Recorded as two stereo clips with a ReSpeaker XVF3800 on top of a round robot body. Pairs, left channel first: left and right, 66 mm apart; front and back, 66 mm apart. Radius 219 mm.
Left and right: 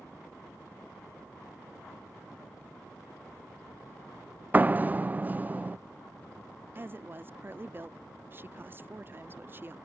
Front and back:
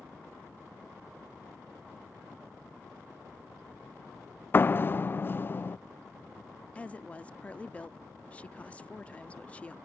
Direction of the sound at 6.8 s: 60° right.